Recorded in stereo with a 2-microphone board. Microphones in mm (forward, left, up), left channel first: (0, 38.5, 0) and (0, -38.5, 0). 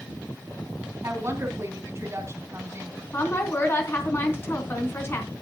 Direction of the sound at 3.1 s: 30° left (ahead or behind).